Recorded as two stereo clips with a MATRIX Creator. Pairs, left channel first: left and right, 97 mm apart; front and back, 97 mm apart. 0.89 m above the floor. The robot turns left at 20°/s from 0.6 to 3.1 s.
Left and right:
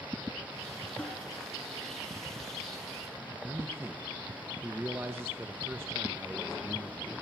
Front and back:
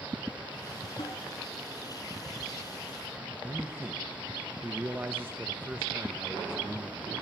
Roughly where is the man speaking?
Behind right.